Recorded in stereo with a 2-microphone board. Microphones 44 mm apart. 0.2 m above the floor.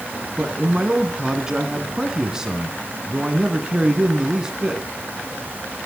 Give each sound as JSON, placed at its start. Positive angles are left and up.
{"t": 0.4, "sound": "a man speaking", "side_deg": -15, "distance_m": 2.0}